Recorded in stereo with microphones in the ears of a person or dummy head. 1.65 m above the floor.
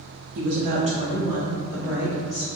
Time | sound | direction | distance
0.3 | a woman speaking | 60° right (ahead or behind) | 0.5 m